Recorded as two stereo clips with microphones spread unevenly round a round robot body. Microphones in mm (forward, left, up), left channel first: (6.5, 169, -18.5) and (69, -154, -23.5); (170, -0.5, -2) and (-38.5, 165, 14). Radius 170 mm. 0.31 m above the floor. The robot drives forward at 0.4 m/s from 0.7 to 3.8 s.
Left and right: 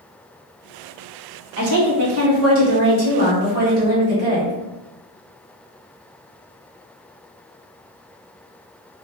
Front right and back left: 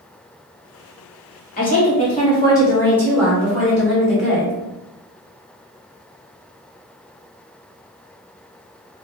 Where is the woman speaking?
75° right, 1.1 m; by 4.5 s 135° right, 1.3 m.